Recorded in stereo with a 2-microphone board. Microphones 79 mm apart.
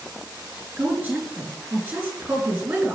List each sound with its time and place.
0.8 s a woman speaking: 15° right (ahead or behind), 3.5 m